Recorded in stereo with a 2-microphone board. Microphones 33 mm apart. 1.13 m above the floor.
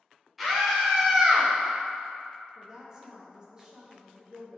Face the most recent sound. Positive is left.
turn(degrees=-20)  # may be behind; listen again after turning